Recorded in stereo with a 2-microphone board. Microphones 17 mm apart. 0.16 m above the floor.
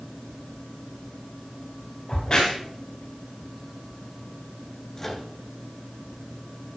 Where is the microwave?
20° left (ahead or behind), 2 m.